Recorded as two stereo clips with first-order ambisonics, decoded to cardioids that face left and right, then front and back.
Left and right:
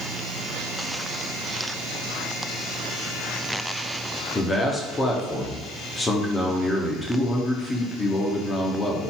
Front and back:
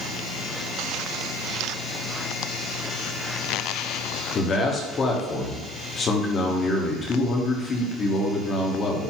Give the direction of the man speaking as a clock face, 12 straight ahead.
11 o'clock.